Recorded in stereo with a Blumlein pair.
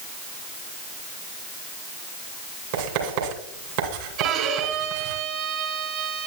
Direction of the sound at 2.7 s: 50° right.